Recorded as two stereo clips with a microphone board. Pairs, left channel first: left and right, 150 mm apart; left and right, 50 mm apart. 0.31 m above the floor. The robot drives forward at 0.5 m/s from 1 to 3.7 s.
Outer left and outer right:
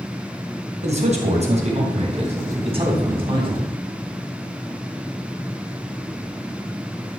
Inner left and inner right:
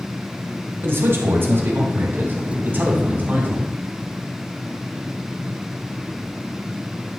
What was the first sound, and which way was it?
A man speaking, 50° right (ahead or behind).